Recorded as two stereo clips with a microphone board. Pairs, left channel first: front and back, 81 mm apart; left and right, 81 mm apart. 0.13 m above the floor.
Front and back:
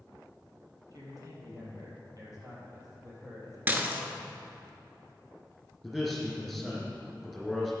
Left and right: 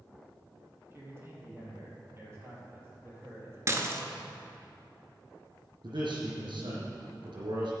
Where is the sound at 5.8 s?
95° right, 4 m.